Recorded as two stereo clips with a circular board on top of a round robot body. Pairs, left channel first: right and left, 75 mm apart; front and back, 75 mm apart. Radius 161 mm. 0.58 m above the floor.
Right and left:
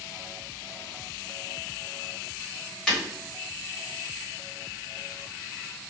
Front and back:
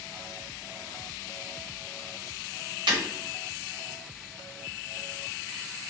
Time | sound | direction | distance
2.9 | breaking glass | 175° right | 1.1 m